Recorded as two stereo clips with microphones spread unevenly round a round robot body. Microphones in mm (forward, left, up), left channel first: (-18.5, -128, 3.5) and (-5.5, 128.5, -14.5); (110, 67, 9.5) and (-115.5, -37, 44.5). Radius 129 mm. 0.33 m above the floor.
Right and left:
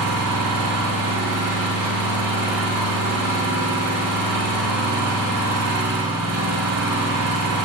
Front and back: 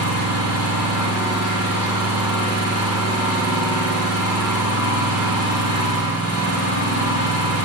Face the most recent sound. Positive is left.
turn(degrees=60)